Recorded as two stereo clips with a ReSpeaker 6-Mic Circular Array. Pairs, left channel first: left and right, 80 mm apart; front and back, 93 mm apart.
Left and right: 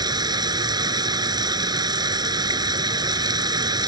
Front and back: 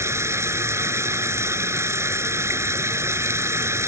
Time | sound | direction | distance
0.0 | running water | 120° right | ?